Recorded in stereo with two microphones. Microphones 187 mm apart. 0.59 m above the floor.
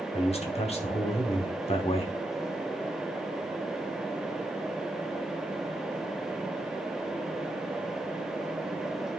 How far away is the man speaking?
About 1.2 m.